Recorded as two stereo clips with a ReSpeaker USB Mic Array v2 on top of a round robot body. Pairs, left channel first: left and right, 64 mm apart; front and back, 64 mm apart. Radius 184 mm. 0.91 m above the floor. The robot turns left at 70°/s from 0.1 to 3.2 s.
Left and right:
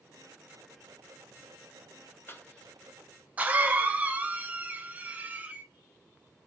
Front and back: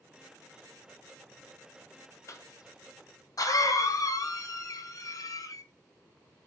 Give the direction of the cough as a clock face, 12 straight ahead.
11 o'clock.